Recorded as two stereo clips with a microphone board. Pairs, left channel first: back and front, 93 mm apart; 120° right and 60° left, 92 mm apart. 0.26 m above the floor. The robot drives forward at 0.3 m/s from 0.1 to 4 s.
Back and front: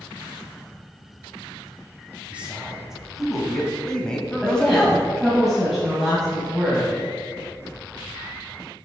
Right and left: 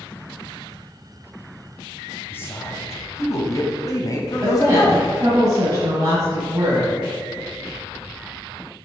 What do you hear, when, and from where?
2.3 s a man speaking: 70° right, 1.3 m; by 5.1 s 105° right, 1.3 m
4.4 s a woman speaking: 90° left, 1.7 m